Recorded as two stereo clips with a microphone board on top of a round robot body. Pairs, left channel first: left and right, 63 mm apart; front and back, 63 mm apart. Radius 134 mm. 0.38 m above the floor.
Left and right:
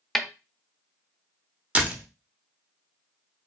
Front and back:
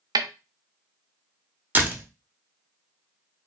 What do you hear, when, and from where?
0.1 s a snare drum: straight behind, 0.6 m
1.8 s a door slam: 145° right, 1.1 m